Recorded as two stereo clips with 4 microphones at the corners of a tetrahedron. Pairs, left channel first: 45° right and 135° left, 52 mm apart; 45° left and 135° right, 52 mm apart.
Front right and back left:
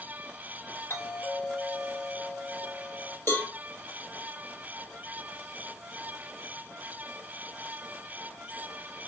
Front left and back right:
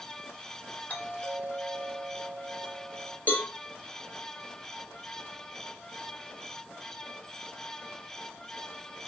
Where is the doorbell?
10° right, 3 m.